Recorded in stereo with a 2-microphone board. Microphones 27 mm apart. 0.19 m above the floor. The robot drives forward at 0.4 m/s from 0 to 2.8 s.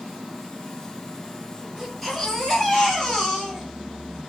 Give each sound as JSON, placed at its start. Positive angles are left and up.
{"t": 1.8, "sound": "a baby crying", "side_deg": 10, "distance_m": 2.5}